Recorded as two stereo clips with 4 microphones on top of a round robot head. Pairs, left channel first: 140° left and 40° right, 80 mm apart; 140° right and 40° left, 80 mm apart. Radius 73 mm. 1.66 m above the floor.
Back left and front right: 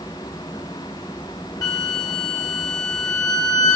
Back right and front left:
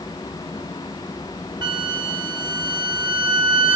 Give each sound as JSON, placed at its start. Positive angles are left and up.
{"t": 1.6, "sound": "a flute", "azimuth_deg": 85, "distance_m": 0.9}